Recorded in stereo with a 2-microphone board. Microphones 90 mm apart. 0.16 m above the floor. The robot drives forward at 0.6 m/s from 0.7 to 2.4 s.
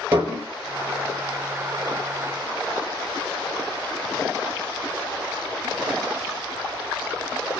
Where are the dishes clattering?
30° right (ahead or behind), 2.5 m.